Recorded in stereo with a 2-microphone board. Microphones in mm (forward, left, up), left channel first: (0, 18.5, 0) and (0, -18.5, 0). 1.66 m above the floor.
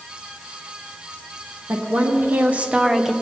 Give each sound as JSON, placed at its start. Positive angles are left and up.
{"t": 1.7, "sound": "a woman speaking", "side_deg": -75, "distance_m": 1.7}